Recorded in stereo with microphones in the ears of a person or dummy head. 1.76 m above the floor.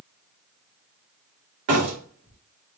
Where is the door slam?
70° right (ahead or behind), 2.5 m.